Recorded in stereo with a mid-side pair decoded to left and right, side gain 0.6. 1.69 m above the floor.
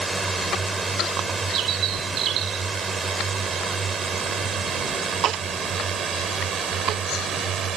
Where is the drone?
20° right; by 7.8 s 45° right.